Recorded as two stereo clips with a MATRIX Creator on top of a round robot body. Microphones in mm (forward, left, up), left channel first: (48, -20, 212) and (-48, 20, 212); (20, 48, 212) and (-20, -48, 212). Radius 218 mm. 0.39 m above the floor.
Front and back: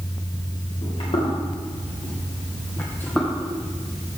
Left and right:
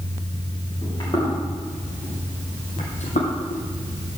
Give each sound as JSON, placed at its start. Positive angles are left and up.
{"t": 0.8, "sound": "footsteps", "azimuth_deg": 15, "distance_m": 4.5}